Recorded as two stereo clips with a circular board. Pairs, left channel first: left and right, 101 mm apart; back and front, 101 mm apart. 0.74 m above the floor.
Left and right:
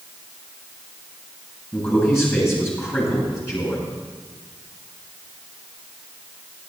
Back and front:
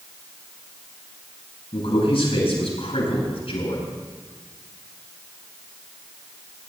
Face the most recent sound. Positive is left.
turn(degrees=155)